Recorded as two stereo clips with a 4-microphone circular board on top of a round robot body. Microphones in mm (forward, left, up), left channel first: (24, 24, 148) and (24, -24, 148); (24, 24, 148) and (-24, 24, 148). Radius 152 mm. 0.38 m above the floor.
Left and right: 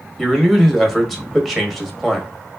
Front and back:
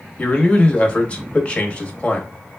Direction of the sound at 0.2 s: 5° left.